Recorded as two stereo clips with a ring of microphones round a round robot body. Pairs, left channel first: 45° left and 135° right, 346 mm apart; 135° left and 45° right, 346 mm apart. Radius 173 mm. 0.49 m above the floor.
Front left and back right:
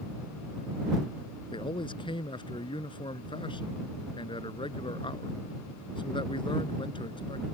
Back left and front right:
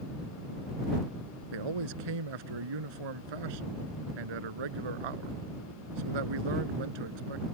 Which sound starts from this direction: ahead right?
A man speaking, at 1.5 s.